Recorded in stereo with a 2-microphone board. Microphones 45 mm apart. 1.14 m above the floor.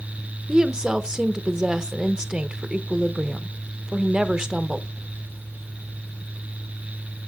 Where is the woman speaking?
15° right (ahead or behind), 0.6 m.